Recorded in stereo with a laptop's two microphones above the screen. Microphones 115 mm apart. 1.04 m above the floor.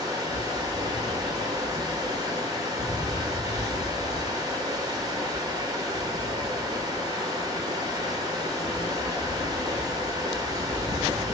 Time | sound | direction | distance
0.0 | running water | 35° right (ahead or behind) | 1.8 m